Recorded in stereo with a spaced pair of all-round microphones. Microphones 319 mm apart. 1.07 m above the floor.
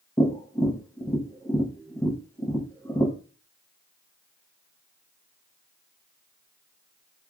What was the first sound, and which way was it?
Tapping, 10° left (ahead or behind).